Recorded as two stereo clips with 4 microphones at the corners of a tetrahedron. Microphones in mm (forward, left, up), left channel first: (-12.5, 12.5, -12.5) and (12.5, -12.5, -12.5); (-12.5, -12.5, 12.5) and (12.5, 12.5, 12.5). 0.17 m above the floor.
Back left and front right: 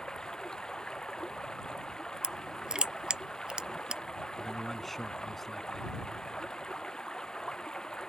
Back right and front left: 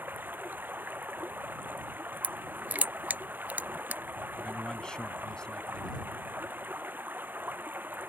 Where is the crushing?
20° left.